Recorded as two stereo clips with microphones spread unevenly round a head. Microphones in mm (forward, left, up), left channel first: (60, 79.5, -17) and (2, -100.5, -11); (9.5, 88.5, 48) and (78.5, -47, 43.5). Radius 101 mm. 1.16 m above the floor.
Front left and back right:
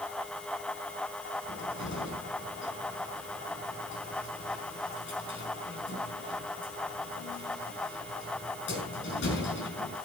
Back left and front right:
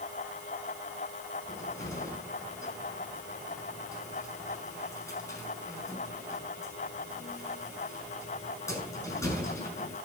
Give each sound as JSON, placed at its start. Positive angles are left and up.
{"t": 1.5, "sound": "a cupboard door", "azimuth_deg": 45, "distance_m": 7.0}